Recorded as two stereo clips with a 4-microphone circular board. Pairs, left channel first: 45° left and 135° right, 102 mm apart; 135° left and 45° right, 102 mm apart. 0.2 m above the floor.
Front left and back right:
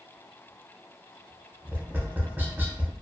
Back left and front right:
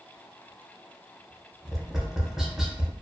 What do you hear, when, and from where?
1.6 s tapping: 120° right, 0.5 m